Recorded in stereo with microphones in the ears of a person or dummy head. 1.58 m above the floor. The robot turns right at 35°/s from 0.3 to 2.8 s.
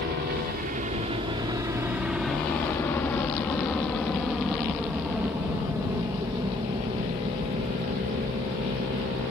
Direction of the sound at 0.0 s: 60° right (ahead or behind).